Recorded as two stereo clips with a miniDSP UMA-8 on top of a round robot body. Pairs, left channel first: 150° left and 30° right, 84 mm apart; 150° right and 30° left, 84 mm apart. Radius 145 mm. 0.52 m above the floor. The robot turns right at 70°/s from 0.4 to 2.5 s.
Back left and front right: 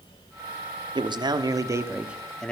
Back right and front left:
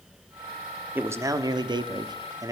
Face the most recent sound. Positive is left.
turn(degrees=75)